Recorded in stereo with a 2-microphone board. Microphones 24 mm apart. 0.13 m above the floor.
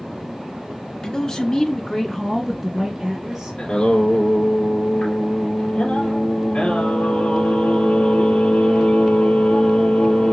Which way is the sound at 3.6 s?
60° left (ahead or behind).